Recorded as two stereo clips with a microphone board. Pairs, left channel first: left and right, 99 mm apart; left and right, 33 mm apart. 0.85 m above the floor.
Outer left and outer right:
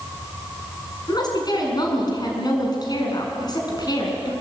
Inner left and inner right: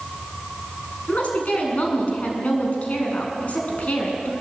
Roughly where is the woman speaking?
Left.